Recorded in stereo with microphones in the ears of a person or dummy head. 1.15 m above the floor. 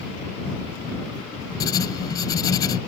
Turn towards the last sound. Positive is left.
turn(degrees=15)  # may be behind; listen again after turning